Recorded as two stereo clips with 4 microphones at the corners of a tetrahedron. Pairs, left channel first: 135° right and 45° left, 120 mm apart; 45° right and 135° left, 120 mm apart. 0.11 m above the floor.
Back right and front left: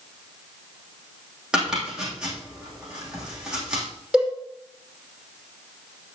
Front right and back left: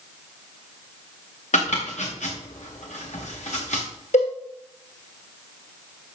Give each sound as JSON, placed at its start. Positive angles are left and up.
{"t": 1.5, "sound": "chopping", "azimuth_deg": -40, "distance_m": 4.5}
{"t": 4.1, "sound": "a cowbell", "azimuth_deg": -40, "distance_m": 6.0}